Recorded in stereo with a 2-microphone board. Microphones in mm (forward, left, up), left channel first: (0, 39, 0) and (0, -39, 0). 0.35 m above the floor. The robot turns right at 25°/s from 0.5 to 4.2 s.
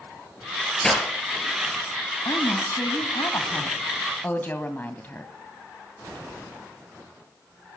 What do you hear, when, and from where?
0.8 s breaking glass: 5° left (ahead or behind), 4.5 m; by 1.1 s 10° left (ahead or behind), 4.5 m
2.2 s a woman speaking: 100° left, 2 m; by 5.3 s 150° left, 2 m